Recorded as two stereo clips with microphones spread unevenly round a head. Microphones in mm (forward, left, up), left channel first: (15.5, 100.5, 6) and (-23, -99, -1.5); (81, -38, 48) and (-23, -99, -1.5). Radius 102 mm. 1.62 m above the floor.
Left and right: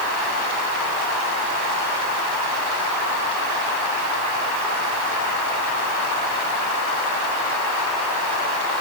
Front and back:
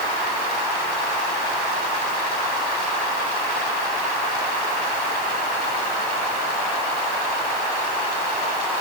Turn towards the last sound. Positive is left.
No sound to turn to.